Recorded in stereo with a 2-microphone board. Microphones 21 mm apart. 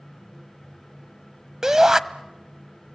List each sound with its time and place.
1.6 s a shout: 20° right (ahead or behind), 1.0 m